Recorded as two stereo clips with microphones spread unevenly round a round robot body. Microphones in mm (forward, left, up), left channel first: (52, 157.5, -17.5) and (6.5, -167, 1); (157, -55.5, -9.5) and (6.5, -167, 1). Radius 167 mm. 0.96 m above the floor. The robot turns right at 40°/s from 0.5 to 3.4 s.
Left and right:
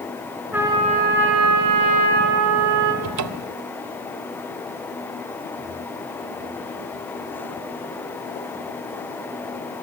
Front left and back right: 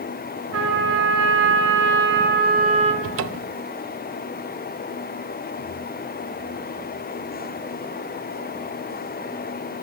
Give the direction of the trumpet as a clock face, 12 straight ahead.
6 o'clock.